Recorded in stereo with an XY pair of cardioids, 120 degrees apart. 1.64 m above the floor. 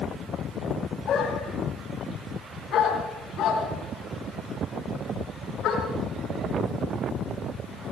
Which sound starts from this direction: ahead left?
A dog barking, at 1.1 s.